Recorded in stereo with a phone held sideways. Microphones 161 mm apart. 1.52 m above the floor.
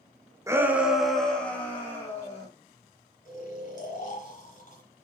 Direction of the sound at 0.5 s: 20° right (ahead or behind).